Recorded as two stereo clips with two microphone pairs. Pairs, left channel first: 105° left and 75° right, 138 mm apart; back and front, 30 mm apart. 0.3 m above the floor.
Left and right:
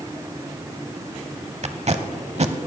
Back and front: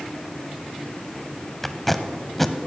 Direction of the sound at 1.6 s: 100° right.